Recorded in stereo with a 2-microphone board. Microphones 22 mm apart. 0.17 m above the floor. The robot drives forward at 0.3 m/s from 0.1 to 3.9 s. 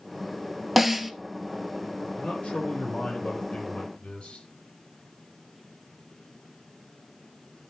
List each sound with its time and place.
0.8 s a snare drum: 5° right (ahead or behind), 0.7 m
2.2 s a man speaking: 60° left (ahead or behind), 5.5 m